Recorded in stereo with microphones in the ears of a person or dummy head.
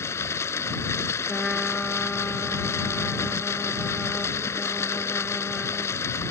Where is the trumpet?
Centre (ahead or behind).